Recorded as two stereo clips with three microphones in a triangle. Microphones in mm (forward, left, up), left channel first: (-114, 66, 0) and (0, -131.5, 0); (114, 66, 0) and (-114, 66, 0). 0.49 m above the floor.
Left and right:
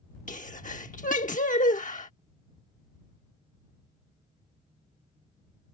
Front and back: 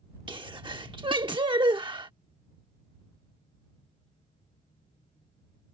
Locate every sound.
0.3 s a sneeze: 125° left